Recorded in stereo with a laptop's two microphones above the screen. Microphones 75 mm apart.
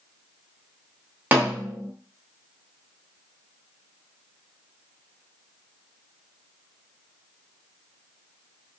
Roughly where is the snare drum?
Right.